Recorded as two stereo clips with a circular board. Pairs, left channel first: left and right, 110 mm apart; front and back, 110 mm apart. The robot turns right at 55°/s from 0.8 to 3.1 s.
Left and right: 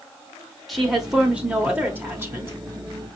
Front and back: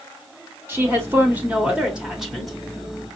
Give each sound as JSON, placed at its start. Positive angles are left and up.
{"t": 0.7, "sound": "a woman speaking", "azimuth_deg": 180, "distance_m": 1.0}